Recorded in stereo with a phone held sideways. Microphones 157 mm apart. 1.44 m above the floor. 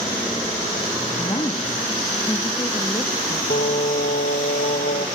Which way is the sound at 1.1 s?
30° left (ahead or behind).